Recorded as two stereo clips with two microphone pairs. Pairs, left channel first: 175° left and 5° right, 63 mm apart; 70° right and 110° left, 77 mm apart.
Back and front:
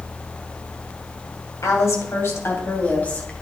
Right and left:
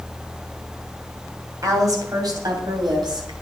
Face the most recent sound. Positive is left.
turn(degrees=105)